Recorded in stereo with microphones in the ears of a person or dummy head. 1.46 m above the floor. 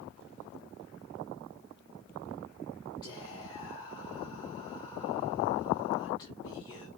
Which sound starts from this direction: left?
Whispering, at 3.0 s.